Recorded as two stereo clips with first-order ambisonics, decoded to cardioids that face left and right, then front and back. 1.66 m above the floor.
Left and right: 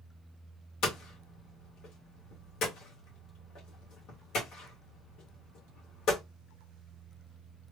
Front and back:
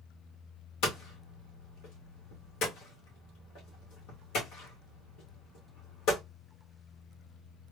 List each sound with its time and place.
0.8 s hammering: 45° left, 1.7 m